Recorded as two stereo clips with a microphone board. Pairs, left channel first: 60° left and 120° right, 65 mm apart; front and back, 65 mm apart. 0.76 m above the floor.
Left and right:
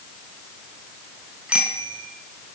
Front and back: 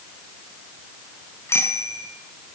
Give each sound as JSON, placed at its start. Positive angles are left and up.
{"t": 1.5, "sound": "a bicycle bell", "azimuth_deg": -50, "distance_m": 6.0}